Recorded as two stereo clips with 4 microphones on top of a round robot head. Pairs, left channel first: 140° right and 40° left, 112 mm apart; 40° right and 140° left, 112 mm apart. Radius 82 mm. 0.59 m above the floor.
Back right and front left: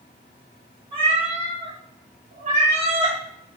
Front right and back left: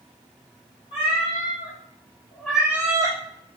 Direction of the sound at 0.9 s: 5° right.